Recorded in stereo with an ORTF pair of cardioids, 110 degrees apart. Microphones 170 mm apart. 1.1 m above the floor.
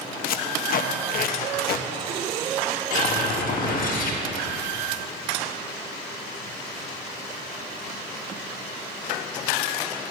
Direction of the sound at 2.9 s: 60° left.